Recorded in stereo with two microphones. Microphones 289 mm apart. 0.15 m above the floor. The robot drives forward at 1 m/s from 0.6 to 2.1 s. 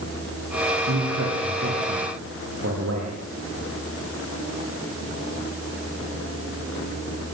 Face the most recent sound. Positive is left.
turn(degrees=-55)  # may be behind; listen again after turning